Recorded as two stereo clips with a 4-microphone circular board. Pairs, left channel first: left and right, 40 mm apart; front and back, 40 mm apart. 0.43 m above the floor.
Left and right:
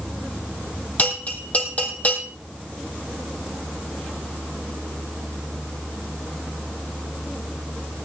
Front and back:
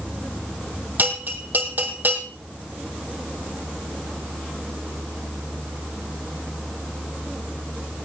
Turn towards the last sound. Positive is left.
turn(degrees=145)